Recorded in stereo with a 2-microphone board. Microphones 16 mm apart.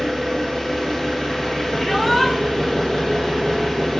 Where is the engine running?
30° left (ahead or behind), 1.0 m.